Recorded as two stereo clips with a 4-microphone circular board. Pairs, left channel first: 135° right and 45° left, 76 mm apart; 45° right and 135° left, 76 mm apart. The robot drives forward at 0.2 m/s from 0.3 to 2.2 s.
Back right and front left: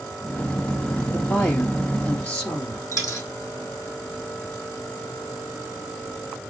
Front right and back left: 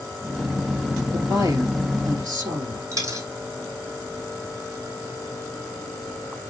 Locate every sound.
1.1 s a woman speaking: 155° left, 3 m
2.9 s a dropped coin: 175° left, 3.5 m